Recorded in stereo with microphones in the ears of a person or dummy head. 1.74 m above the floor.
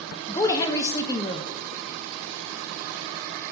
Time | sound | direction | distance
0.3 | a woman speaking | 20° left (ahead or behind) | 0.9 m